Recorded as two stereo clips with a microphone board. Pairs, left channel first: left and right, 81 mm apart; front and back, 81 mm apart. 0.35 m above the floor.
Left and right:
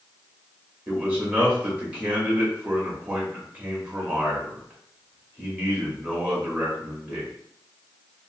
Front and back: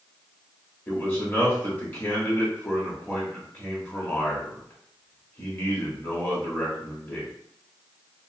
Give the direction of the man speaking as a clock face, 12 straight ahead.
1 o'clock.